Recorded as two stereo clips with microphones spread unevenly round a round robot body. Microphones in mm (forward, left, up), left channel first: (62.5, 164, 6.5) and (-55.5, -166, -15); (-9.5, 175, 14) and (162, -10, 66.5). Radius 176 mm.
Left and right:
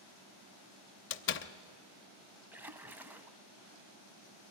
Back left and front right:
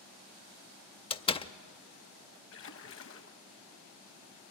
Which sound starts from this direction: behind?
A splash, at 2.5 s.